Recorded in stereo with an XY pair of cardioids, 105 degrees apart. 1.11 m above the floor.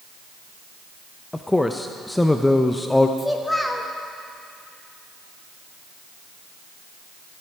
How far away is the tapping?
No tapping in this recording.